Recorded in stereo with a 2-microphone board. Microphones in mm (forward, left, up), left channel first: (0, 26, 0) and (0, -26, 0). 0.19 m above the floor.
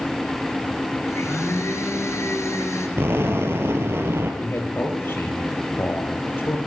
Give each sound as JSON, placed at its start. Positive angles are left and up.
{"t": 1.1, "sound": "a blender", "side_deg": 65, "distance_m": 4.0}
{"t": 3.0, "sound": "an explosion", "side_deg": -55, "distance_m": 3.5}
{"t": 4.4, "sound": "a man speaking", "side_deg": 50, "distance_m": 5.0}